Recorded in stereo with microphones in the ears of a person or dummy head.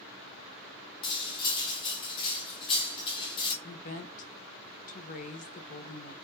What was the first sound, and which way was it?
Cutlery clinking, 25° left (ahead or behind).